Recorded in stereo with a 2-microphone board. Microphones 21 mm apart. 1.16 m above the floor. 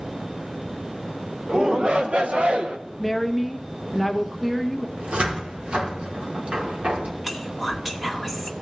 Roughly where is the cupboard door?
Right.